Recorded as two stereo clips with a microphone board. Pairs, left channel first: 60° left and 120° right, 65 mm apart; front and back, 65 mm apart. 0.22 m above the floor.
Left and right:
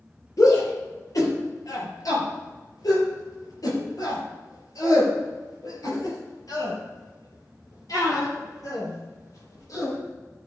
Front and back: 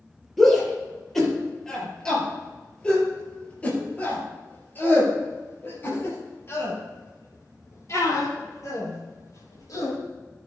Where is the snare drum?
No snare drum in this recording.